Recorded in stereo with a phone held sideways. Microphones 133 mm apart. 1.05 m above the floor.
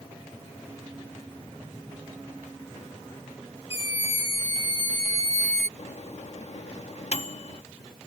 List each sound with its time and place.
3.7 s a scream: 25° right (ahead or behind); by 5.7 s 65° right (ahead or behind)
5.8 s a microwave: 55° left (ahead or behind)